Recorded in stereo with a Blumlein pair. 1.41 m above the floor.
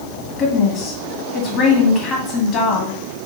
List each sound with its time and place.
0.4 s a woman speaking: 30° left, 2.5 m